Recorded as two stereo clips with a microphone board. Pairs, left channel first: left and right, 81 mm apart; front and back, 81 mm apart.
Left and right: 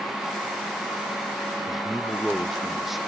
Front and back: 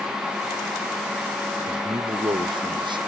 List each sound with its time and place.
1.7 s a man speaking: straight behind